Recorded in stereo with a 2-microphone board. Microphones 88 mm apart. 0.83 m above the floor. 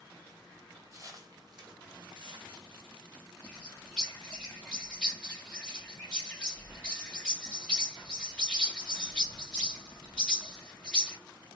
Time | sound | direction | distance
0.9 | footsteps | 30° right (ahead or behind) | 1.2 m
3.4 | a bird | 10° left (ahead or behind) | 1.5 m